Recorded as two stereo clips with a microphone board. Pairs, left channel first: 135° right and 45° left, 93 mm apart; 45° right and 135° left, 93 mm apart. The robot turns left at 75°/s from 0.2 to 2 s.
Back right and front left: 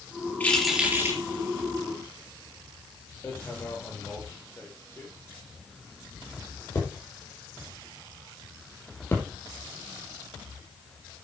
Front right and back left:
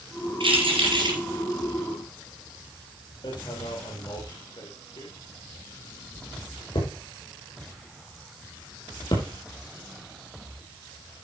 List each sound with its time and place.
0.4 s keys jangling: 155° left, 3.5 m; by 1.2 s 95° left, 3.5 m
3.2 s hammering: 75° right, 4.5 m